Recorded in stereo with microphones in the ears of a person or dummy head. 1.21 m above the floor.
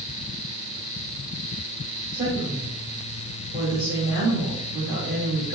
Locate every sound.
2.1 s a woman speaking: 25° right (ahead or behind), 1.6 m